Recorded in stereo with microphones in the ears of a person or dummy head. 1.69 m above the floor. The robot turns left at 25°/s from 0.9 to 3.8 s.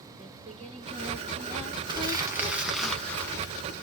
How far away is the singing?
About 1.6 m.